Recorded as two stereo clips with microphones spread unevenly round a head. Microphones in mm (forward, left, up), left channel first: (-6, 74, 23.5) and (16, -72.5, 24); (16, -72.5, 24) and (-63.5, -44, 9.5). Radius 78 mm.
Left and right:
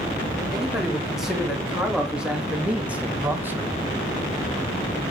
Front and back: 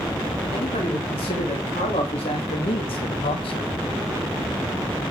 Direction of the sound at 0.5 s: 5° left.